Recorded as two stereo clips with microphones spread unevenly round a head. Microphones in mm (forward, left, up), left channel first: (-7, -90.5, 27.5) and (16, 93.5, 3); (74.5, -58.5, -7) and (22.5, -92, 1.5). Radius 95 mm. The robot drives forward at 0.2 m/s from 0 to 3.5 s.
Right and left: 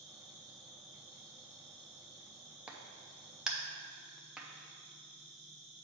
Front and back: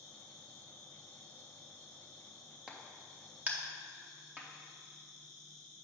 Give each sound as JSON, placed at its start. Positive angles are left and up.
{"t": 0.0, "sound": "an insect", "azimuth_deg": 180, "distance_m": 1.9}
{"t": 2.7, "sound": "a crack", "azimuth_deg": 180, "distance_m": 0.6}